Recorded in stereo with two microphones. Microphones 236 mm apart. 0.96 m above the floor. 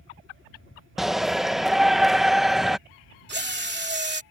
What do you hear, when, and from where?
1.0 s a shout: centre (ahead or behind)
3.3 s a drill: 45° right (ahead or behind)